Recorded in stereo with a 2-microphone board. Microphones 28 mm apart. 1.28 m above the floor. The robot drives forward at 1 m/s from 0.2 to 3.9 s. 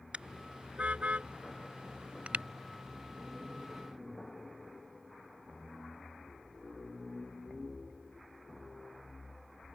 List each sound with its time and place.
0.1 s a car horn: 45° right (ahead or behind); by 2.5 s 50° right (ahead or behind)